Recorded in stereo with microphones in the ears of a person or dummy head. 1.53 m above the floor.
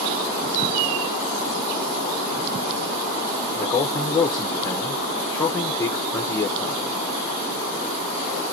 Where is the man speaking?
10° left (ahead or behind), 0.6 m.